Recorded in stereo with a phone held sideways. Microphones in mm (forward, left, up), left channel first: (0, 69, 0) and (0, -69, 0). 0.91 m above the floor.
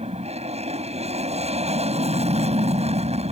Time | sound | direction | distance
0.0 | an aircraft | 50° right (ahead or behind) | ?